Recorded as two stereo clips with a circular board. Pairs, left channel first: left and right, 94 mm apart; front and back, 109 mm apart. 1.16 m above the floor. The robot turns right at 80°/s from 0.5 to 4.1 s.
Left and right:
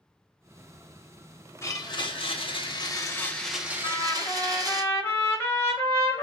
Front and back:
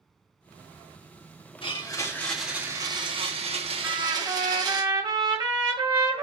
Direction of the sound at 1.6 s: 30° left.